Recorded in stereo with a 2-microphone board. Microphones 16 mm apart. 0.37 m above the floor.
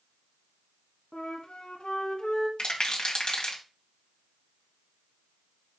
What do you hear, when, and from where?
1.1 s a flute: 80° left, 1.4 m
2.6 s a rattle: 60° left (ahead or behind), 1.9 m